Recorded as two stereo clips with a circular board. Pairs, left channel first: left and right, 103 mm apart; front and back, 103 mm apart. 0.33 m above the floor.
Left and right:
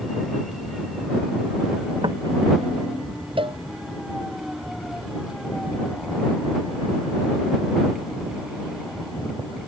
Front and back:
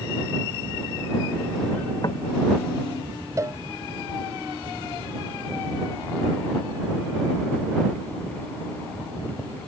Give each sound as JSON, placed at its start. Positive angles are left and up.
{"t": 2.0, "sound": "knocking", "azimuth_deg": -50}
{"t": 3.4, "sound": "a cowbell", "azimuth_deg": -120}